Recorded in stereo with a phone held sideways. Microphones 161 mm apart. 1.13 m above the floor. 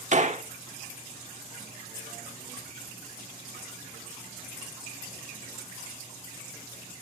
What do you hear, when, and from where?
0.1 s a gunshot: 50° right (ahead or behind), 1.4 m